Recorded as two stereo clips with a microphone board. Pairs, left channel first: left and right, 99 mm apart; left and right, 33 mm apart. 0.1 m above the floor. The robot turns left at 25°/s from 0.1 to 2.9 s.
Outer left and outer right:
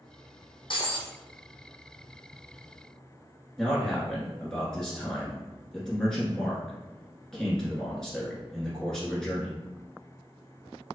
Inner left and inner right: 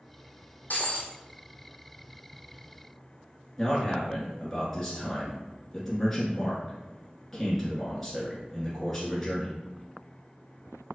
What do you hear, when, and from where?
0.7 s breaking glass: 60° left (ahead or behind), 0.9 m; by 1.1 s 50° left (ahead or behind), 0.9 m
3.6 s a man speaking: 5° left (ahead or behind), 1.1 m